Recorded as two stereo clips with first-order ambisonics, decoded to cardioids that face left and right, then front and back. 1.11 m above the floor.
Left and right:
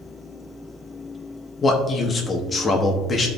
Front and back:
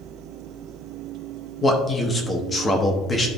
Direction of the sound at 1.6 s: 45° left.